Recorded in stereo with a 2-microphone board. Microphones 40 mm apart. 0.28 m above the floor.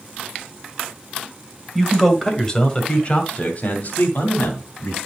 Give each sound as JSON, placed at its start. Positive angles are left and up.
{"t": 1.8, "sound": "a man speaking", "side_deg": 0, "distance_m": 1.7}